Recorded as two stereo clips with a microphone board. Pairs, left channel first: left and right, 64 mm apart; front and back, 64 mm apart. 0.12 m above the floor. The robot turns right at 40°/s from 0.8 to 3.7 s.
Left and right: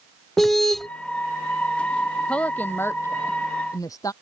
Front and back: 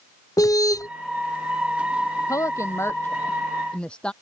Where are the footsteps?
No footsteps in this recording.